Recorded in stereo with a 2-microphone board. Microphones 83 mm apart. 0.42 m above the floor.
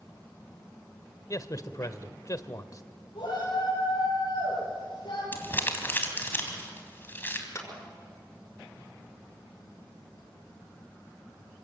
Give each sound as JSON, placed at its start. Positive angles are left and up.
{"t": 1.3, "sound": "a man speaking", "side_deg": 45, "distance_m": 1.3}
{"t": 3.1, "sound": "a shout", "side_deg": 70, "distance_m": 9.5}
{"t": 5.3, "sound": "crumpling", "side_deg": 25, "distance_m": 3.5}
{"t": 7.5, "sound": "a clap", "side_deg": 35, "distance_m": 5.5}